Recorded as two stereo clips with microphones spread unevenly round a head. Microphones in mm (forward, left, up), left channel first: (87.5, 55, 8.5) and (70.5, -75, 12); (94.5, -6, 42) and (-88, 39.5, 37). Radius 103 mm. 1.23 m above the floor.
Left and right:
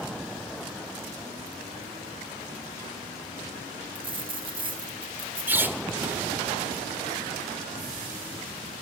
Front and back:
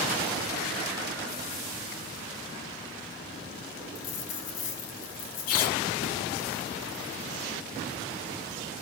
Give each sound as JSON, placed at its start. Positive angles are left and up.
{"t": 4.0, "sound": "a dropped coin", "azimuth_deg": -50, "distance_m": 4.5}
{"t": 5.5, "sound": "a squeak", "azimuth_deg": -25, "distance_m": 1.6}